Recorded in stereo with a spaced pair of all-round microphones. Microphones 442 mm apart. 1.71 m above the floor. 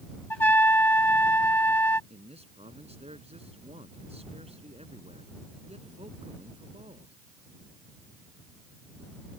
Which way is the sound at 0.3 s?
80° left.